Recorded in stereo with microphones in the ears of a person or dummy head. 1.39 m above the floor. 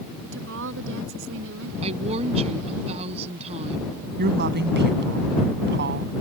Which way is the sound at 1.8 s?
35° right (ahead or behind).